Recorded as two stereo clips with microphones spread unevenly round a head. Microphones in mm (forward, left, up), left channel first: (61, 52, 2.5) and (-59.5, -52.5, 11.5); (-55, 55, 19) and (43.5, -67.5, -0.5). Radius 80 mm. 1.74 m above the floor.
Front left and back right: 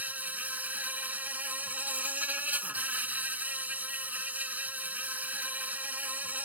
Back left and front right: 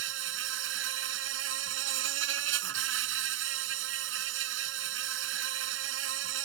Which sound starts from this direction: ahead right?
An insect, at 0.0 s.